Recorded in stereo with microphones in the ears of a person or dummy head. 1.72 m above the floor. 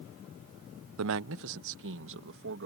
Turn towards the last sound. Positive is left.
turn(degrees=-60)  # may be behind; listen again after turning